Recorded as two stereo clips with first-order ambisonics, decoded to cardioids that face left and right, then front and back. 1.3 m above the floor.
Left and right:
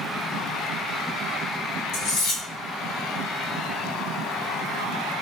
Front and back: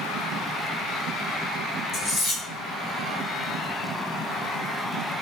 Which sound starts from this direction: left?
Cutlery clinking, at 1.9 s.